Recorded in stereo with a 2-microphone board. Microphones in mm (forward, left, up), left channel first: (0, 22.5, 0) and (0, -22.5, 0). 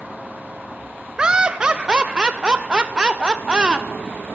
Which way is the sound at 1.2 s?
20° right (ahead or behind).